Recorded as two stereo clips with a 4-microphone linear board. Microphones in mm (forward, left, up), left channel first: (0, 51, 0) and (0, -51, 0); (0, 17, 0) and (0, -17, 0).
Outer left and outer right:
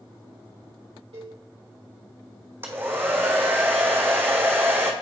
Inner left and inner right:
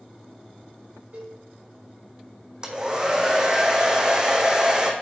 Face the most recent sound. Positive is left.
turn(degrees=-20)  # may be behind; listen again after turning